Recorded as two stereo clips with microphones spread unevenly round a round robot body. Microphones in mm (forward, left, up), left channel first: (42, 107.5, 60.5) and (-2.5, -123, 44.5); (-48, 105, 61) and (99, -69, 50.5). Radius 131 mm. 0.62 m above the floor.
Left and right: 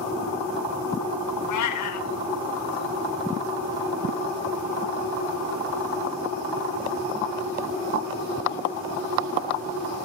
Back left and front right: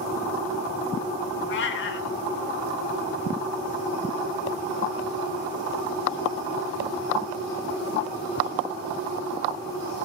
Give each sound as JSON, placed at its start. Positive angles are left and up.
{"t": 1.5, "sound": "a cat meowing", "azimuth_deg": 95, "distance_m": 0.8}